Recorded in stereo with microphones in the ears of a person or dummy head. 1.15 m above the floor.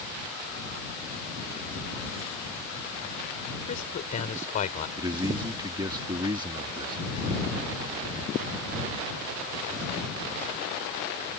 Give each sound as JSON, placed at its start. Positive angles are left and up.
{"t": 3.7, "sound": "a man speaking", "side_deg": 40}
{"t": 5.0, "sound": "a man speaking", "side_deg": -20}